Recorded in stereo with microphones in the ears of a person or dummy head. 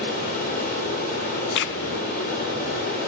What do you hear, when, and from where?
0.0 s running water: 55° left (ahead or behind), 5 m
1.6 s a crack: 70° left (ahead or behind), 0.6 m